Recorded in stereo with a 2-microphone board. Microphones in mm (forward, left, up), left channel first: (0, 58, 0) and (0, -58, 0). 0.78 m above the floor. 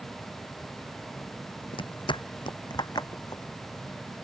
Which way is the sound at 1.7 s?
45° left (ahead or behind).